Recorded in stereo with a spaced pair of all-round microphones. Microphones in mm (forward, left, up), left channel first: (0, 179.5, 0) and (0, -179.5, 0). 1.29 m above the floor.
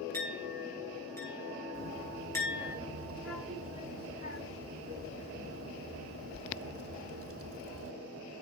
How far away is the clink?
About 6.5 m.